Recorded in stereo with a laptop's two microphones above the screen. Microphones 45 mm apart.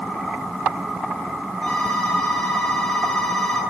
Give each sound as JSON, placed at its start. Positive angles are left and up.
{"t": 1.6, "sound": "a phone ringing", "side_deg": 10, "distance_m": 9.0}